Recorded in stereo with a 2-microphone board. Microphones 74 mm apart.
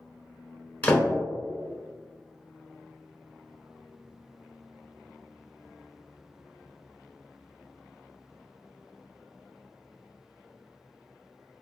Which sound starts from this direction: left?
A door slam, at 0.8 s.